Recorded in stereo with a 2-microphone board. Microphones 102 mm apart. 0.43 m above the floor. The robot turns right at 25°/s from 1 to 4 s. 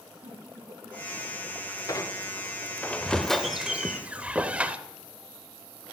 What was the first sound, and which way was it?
A giggle, 70° right (ahead or behind).